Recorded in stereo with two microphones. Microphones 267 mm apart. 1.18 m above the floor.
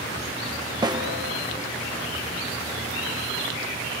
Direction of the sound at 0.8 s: 15° right (ahead or behind).